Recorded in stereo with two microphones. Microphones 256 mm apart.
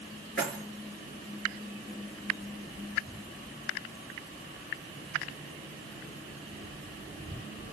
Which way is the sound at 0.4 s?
50° left (ahead or behind).